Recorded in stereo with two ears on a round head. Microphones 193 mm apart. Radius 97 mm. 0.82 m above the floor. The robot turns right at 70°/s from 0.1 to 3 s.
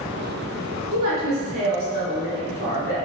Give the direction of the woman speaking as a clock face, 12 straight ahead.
4 o'clock.